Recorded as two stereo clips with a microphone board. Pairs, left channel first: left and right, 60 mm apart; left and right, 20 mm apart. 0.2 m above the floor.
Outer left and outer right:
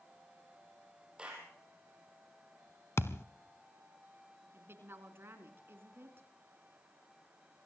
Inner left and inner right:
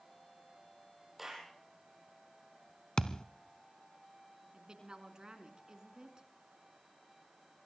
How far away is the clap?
About 6 m.